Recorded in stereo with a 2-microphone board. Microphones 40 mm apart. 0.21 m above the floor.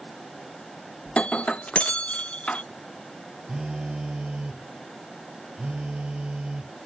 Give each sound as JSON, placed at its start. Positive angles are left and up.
{"t": 1.1, "sound": "breaking glass", "side_deg": 30}
{"t": 3.5, "sound": "a phone buzzing", "side_deg": -20}